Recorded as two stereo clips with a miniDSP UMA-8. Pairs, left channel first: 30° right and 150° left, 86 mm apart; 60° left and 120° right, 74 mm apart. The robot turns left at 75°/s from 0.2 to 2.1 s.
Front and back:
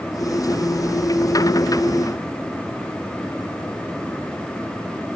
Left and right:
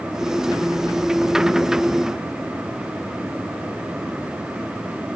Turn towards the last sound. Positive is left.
No sound to turn to.